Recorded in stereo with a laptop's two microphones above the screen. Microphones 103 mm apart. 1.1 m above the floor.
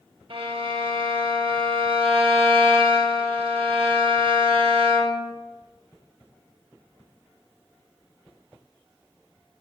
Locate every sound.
0.3 s a violin: 65° right (ahead or behind), 0.7 m